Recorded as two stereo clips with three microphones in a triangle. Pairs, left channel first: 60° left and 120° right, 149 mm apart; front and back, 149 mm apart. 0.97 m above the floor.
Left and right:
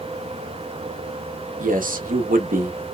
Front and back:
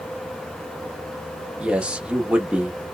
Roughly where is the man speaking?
Right.